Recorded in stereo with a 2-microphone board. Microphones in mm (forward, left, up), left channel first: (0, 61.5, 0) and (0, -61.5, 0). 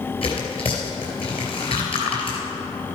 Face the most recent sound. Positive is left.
turn(degrees=50)  # may be behind; listen again after turning